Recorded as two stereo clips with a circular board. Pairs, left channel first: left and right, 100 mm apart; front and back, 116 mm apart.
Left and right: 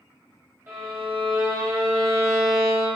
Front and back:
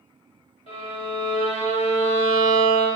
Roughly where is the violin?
Ahead right.